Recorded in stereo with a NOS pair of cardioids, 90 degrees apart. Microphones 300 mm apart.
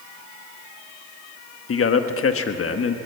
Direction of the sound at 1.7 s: 50° left.